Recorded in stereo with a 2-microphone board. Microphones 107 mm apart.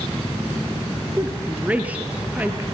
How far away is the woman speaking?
About 2.5 m.